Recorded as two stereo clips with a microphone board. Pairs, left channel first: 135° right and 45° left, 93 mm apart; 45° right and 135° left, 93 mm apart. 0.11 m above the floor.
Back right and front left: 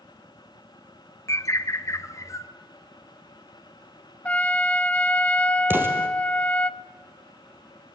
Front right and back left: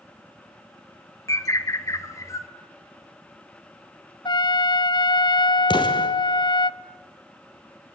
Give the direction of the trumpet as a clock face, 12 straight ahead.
2 o'clock.